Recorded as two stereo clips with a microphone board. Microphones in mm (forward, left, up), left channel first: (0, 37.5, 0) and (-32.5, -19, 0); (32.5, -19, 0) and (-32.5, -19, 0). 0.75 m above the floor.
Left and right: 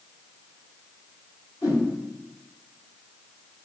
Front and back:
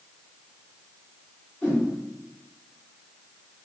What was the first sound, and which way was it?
A whoosh, 70° left.